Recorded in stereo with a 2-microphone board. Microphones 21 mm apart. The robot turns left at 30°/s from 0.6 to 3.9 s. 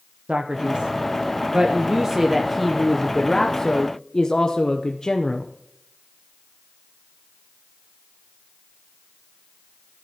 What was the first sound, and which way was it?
A man speaking, 115° right.